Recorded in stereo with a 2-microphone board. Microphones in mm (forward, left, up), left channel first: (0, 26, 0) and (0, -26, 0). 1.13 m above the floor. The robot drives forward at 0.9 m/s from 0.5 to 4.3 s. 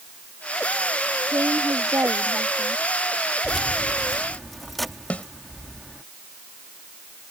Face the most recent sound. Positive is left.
turn(degrees=25)  # may be behind; listen again after turning